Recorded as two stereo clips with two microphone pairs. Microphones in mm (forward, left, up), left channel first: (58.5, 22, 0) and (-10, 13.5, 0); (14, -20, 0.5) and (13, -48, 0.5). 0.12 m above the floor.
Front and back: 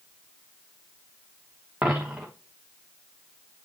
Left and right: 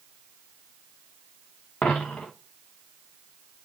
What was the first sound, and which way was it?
A dropped coin, 110° left.